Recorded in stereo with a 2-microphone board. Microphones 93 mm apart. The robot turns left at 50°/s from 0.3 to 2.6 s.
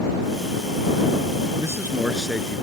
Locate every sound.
1.6 s a man speaking: 145° right; by 2.6 s 165° left